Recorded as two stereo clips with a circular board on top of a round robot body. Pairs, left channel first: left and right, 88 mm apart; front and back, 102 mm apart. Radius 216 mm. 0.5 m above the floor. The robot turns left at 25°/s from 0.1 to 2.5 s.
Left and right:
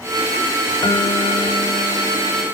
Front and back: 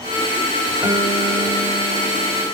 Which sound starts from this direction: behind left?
A guitar, at 0.8 s.